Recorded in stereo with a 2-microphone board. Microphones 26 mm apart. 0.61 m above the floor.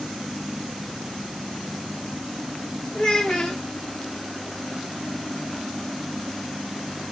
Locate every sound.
3.0 s a child speaking: 40° left (ahead or behind), 1.0 m